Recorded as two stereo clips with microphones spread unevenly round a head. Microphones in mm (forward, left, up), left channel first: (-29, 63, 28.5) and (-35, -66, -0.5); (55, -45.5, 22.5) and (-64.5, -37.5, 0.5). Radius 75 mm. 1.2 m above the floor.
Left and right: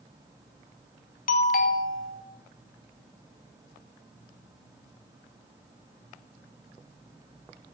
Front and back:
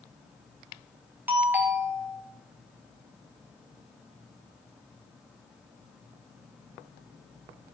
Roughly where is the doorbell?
Left.